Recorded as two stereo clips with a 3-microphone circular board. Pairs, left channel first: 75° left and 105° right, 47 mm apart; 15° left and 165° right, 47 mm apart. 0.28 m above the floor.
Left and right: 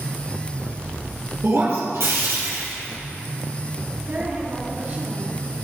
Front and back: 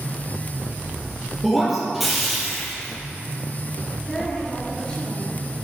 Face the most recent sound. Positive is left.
turn(degrees=-60)